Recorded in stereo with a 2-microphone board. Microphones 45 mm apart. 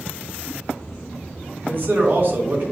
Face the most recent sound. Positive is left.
turn(degrees=-50)  # may be behind; listen again after turning